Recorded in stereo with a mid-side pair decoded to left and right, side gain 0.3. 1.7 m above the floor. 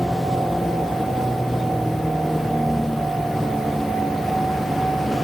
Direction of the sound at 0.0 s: Straight ahead.